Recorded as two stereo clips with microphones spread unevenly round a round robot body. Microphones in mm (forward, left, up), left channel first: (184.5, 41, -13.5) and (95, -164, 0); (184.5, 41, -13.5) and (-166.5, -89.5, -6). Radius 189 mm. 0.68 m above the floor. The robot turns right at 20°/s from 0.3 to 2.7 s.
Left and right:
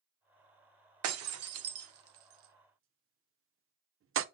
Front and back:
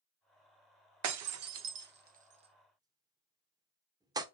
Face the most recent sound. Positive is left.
turn(degrees=-80)